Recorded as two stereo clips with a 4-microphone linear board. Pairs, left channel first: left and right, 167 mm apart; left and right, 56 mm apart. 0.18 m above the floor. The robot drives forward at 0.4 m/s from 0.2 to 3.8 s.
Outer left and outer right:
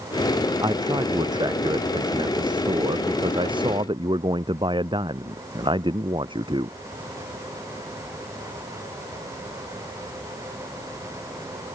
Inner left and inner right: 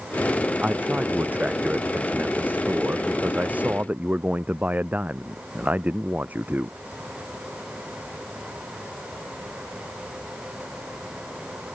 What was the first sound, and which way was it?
A man speaking, 25° right (ahead or behind).